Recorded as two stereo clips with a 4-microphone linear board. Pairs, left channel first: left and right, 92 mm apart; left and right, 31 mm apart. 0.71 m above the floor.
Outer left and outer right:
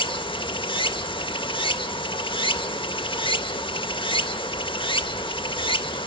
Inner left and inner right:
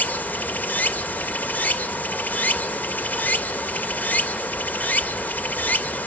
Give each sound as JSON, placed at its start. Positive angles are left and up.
{"t": 0.0, "sound": "running water", "side_deg": 65, "distance_m": 0.7}